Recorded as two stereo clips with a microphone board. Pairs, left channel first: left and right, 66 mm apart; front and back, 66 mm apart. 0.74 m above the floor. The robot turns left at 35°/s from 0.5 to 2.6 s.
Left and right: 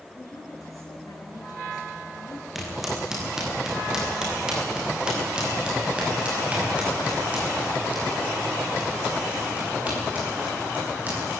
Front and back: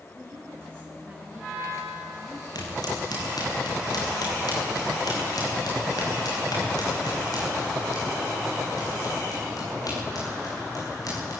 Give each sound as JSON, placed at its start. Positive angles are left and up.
{"t": 0.1, "sound": "a woman speaking", "azimuth_deg": 130, "distance_m": 8.0}
{"t": 2.5, "sound": "footsteps", "azimuth_deg": -5, "distance_m": 8.5}